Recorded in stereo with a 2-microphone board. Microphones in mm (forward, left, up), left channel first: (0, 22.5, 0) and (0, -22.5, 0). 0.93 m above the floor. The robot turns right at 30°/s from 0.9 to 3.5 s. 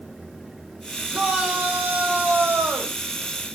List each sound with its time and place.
1.1 s a shout: 165° right, 4.5 m; by 3.0 s 110° right, 4.5 m